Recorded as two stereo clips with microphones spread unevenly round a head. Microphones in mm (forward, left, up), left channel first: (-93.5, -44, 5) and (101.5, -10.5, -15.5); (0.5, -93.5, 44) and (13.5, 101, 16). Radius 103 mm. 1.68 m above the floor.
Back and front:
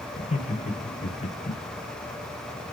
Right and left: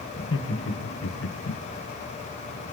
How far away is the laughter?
About 1.9 m.